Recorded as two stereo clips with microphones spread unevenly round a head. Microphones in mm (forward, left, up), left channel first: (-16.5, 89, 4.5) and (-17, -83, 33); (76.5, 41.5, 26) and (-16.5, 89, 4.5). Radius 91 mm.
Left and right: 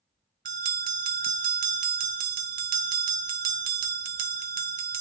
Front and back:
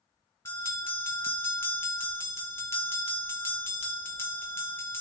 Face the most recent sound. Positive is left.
turn(degrees=-90)